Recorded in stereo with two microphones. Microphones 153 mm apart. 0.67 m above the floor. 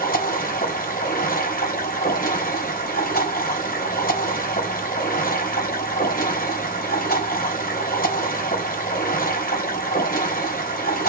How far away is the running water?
About 3.5 m.